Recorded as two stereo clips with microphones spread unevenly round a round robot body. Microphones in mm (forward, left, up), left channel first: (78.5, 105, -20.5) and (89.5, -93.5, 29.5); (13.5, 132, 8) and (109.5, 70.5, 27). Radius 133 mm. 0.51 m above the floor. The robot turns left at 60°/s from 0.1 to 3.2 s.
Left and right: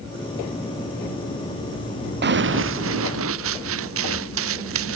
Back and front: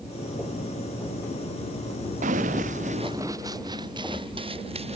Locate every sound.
2.2 s running footsteps: 60° right; by 5.0 s 100° right